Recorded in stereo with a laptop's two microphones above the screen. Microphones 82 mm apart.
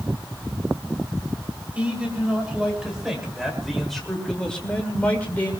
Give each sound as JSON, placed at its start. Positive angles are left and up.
{"t": 1.8, "sound": "a man speaking", "side_deg": -15, "distance_m": 3.0}